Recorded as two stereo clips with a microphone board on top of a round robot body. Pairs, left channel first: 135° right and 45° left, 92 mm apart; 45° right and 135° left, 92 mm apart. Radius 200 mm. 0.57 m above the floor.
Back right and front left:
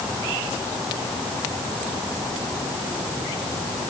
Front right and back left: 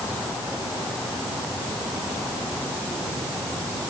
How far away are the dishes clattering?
I don't hear dishes clattering.